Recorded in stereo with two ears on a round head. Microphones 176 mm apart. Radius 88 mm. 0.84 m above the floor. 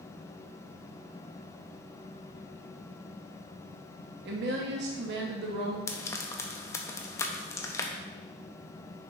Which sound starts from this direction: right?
A woman speaking, at 4.2 s.